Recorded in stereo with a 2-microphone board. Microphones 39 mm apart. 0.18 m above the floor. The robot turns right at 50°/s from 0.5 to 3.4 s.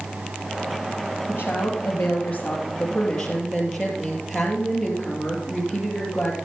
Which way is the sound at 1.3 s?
75° left.